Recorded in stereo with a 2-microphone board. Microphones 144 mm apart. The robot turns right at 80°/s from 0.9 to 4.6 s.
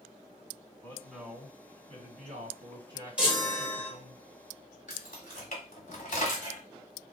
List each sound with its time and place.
0.8 s a man speaking: 165° left, 2.5 m; by 4.2 s 65° left, 2.5 m
3.2 s a chime: 10° right (ahead or behind), 1.4 m; by 3.9 s 20° right (ahead or behind), 1.4 m
4.9 s keys jangling: 65° left (ahead or behind), 1.3 m